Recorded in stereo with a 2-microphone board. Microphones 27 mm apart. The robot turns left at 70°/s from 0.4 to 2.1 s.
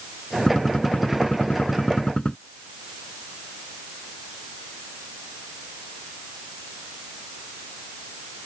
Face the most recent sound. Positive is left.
turn(degrees=45)